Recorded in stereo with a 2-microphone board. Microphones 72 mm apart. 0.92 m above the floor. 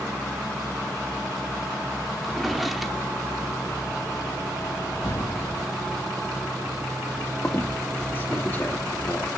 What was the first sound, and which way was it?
A drawer, centre (ahead or behind).